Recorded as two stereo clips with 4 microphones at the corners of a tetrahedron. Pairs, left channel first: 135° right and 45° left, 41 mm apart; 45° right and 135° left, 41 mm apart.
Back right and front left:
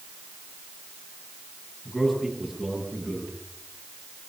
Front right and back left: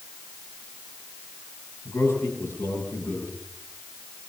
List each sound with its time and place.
1.9 s a man speaking: 50° right, 10 m